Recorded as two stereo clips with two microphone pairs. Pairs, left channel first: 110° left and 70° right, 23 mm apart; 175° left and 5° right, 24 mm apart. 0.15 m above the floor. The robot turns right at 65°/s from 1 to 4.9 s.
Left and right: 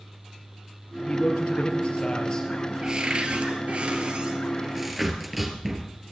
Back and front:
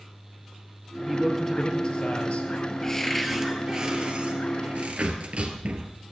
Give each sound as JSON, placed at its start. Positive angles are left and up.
{"t": 1.1, "sound": "a man speaking", "azimuth_deg": 80, "distance_m": 3.5}
{"t": 2.8, "sound": "a cupboard door", "azimuth_deg": -125, "distance_m": 2.5}